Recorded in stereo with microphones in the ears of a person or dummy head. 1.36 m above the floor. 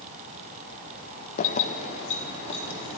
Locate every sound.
1.4 s keys jangling: 45° left (ahead or behind), 0.6 m; by 3.0 s 40° left (ahead or behind), 3 m